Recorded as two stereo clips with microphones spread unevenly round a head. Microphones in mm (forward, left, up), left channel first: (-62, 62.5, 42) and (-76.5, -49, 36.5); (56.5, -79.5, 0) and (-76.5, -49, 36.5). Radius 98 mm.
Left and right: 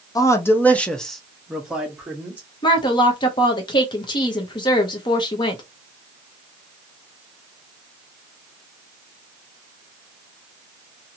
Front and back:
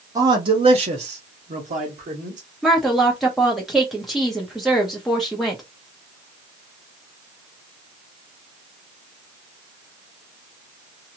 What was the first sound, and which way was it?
A man speaking, 125° left.